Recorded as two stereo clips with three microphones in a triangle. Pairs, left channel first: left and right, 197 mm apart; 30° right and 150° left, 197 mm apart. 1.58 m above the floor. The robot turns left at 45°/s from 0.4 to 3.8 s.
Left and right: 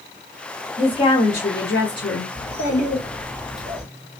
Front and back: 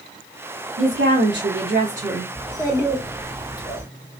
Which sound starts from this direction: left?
A child speaking, at 2.4 s.